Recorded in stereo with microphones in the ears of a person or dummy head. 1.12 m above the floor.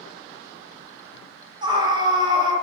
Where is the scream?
25° right (ahead or behind), 0.8 m.